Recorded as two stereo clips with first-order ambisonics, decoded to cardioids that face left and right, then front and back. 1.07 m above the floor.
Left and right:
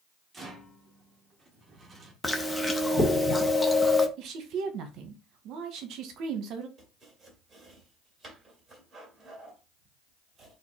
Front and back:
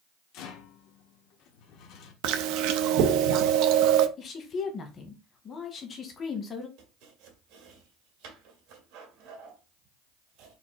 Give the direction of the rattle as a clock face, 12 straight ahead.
1 o'clock.